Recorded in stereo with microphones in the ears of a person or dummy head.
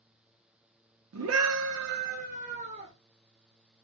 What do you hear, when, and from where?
1.1 s a scream: 80° right, 0.7 m; by 2.9 s 35° right (ahead or behind), 1.2 m